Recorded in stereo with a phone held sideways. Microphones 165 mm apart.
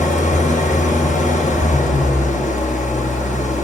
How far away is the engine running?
About 0.8 m.